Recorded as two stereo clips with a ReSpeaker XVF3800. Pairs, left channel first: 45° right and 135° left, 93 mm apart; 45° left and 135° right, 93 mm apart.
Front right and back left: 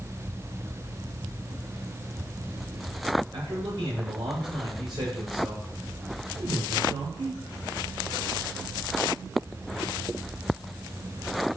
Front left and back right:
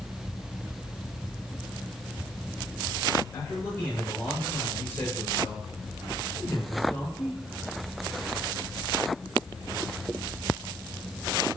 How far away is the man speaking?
About 7 m.